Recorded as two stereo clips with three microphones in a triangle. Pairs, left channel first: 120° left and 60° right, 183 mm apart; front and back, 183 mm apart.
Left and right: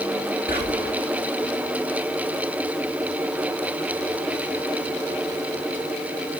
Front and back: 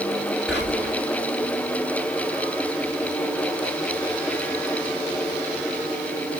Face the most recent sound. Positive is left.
turn(degrees=90)